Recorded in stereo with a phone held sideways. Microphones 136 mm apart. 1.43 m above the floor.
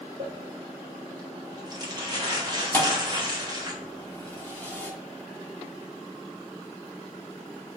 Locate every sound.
0.2 s crumpling: 30° right (ahead or behind), 1.0 m
2.7 s a thud: 15° left (ahead or behind), 0.8 m